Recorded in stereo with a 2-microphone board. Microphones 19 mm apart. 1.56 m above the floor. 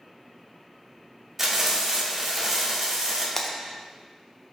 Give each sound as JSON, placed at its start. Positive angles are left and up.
{"t": 1.4, "sound": "frying", "side_deg": -20, "distance_m": 3.0}
{"t": 3.4, "sound": "breaking glass", "side_deg": 25, "distance_m": 0.8}